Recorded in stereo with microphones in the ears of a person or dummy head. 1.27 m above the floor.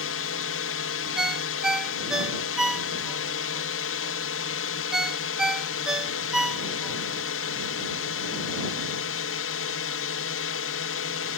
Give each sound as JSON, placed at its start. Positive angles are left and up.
{"t": 0.0, "sound": "a drone", "side_deg": 65}
{"t": 1.2, "sound": "a ringtone", "side_deg": -5}